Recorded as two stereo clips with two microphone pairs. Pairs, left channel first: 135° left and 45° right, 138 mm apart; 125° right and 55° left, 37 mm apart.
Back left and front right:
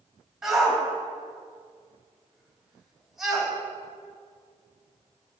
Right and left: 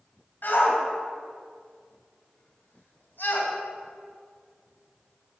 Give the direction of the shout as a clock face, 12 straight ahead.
4 o'clock.